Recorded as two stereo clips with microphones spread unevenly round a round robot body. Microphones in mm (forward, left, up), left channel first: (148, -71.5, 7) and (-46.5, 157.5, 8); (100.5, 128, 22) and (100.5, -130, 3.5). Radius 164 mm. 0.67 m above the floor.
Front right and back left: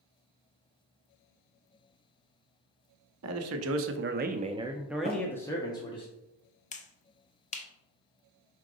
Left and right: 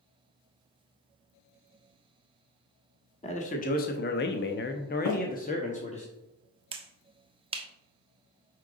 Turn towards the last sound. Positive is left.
turn(degrees=-75)